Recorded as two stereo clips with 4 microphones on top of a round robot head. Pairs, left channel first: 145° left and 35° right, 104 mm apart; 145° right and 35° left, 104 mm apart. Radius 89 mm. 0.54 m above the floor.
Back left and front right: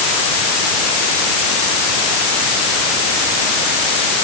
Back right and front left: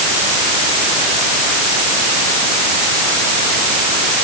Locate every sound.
Only background noise.